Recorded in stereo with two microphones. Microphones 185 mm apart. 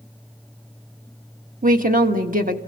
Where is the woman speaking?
50° right (ahead or behind), 1.4 m.